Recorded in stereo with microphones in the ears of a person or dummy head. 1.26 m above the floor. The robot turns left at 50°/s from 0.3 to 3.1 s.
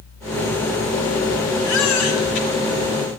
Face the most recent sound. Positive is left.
turn(degrees=35)